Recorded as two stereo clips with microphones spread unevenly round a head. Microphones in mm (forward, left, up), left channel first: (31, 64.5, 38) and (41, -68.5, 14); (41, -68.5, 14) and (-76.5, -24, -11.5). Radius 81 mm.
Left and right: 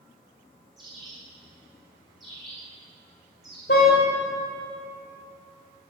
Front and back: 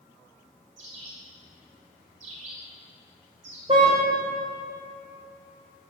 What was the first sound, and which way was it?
A bird, 175° right.